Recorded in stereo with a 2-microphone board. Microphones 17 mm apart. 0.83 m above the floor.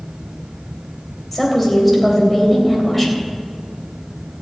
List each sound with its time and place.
1.3 s a woman speaking: 5° left (ahead or behind), 3 m